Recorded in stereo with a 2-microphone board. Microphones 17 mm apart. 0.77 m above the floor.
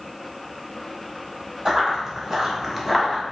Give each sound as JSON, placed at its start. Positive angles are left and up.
{"t": 1.6, "sound": "running footsteps", "side_deg": -30, "distance_m": 1.6}